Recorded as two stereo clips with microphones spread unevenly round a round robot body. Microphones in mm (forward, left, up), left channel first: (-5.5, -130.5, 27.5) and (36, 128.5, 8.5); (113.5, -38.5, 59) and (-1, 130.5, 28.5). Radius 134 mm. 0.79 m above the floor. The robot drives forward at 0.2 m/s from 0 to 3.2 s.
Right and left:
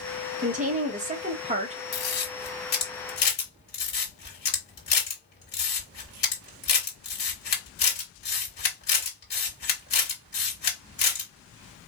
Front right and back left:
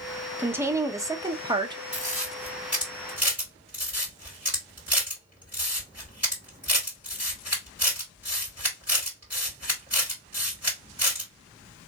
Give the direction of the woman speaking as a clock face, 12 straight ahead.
10 o'clock.